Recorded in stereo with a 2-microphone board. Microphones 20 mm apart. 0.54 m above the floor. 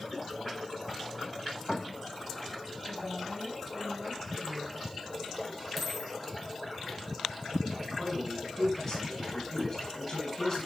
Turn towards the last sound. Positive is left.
turn(degrees=20)  # may be behind; listen again after turning